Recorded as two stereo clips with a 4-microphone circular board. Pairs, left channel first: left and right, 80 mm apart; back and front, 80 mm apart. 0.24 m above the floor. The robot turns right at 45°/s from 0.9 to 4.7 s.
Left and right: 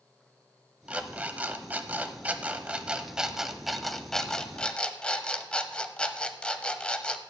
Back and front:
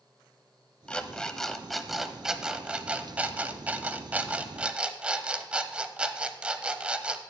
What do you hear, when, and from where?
0.9 s an alarm clock: 130° right, 0.6 m; by 7.2 s 45° left, 0.6 m